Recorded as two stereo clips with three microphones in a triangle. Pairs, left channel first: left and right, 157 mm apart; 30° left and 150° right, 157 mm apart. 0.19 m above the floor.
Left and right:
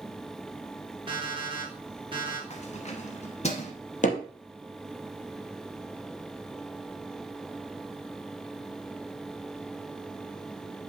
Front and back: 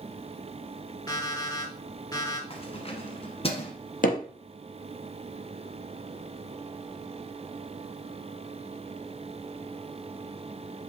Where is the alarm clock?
35° right, 2.5 m.